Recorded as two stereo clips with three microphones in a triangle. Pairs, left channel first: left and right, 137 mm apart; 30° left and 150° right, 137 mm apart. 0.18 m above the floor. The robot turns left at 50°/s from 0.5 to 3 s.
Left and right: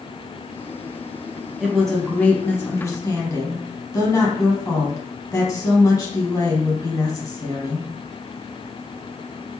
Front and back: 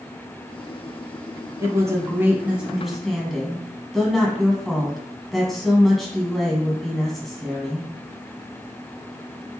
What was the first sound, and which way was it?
A woman speaking, 170° right.